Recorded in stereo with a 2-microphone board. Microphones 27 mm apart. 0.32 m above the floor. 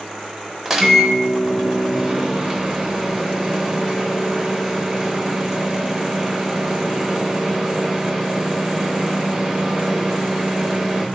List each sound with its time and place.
0.7 s a microwave: 20° right (ahead or behind), 0.6 m